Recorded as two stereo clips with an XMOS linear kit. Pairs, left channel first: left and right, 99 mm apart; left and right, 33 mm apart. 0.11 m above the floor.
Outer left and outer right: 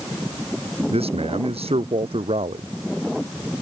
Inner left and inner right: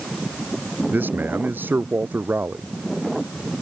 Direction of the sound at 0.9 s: 75° right (ahead or behind).